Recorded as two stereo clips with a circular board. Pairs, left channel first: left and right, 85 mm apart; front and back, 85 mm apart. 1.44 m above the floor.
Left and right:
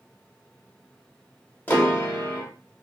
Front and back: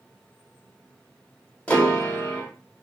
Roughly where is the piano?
Ahead left.